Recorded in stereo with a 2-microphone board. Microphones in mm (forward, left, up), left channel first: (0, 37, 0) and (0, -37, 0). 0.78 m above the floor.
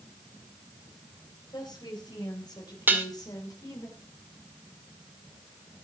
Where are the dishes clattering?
30° right (ahead or behind), 1.8 m.